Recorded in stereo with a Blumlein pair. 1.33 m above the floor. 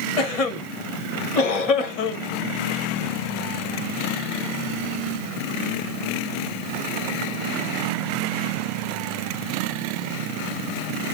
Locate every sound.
0.2 s a cough: 35° left, 1.8 m